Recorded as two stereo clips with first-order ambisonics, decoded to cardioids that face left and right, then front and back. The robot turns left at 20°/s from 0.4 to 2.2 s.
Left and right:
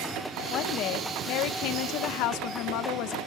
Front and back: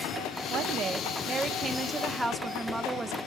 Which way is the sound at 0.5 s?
130° left.